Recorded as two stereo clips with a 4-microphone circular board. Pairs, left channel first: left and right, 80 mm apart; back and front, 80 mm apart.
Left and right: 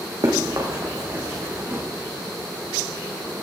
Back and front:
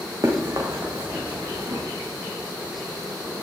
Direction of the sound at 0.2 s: 50° right.